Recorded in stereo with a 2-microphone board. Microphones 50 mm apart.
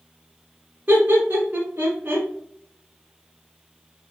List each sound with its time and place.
0.9 s laughter: 40° right (ahead or behind), 1.3 m